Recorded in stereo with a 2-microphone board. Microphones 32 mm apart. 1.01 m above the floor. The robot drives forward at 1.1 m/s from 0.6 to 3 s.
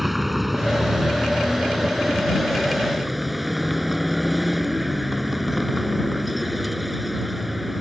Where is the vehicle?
5° right (ahead or behind).